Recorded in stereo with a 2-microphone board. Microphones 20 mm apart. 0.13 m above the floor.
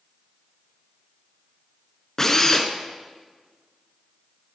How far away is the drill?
About 1.2 m.